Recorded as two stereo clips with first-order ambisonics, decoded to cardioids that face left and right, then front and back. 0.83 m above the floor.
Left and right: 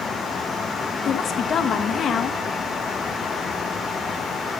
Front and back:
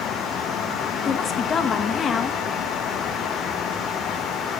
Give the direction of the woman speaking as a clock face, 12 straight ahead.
10 o'clock.